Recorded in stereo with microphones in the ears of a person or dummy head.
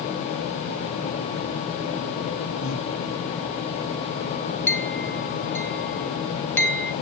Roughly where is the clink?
Centre.